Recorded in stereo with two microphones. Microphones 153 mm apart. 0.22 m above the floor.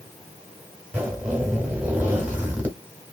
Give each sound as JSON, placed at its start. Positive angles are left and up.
{"t": 0.9, "sound": "a zipper", "side_deg": -10, "distance_m": 1.4}